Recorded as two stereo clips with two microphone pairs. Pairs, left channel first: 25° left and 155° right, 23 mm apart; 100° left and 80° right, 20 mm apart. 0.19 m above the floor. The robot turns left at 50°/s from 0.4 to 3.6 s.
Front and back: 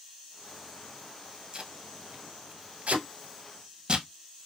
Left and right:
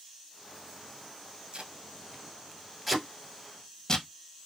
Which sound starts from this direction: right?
Tape being pulled, at 1.5 s.